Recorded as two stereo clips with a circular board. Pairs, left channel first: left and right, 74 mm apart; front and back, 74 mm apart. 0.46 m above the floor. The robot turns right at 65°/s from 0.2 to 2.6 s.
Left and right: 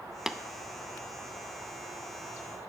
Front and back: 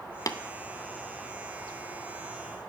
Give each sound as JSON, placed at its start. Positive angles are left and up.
{"t": 0.3, "sound": "tapping", "azimuth_deg": -5, "distance_m": 0.5}